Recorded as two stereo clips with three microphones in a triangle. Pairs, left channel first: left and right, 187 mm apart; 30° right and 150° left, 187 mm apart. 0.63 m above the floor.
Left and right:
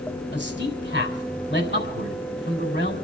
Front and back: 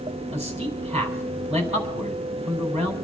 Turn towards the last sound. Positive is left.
turn(degrees=95)